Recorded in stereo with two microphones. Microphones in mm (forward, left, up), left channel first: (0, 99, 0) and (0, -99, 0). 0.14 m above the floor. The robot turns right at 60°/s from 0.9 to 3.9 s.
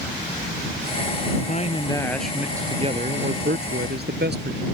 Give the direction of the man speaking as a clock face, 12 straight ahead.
8 o'clock.